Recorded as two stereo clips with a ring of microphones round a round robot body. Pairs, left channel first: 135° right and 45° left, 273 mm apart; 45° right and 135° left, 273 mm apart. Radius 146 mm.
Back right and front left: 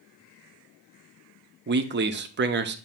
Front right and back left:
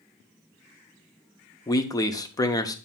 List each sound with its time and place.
1.7 s a man speaking: 25° left, 0.8 m